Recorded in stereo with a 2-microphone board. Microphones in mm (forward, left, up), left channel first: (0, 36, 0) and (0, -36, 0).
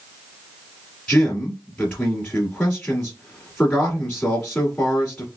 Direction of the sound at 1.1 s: 15° left (ahead or behind).